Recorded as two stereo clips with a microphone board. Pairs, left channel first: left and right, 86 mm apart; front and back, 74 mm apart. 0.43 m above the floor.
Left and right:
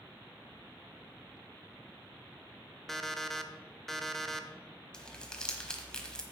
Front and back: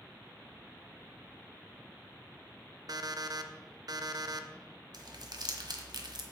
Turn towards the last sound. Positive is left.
turn(degrees=170)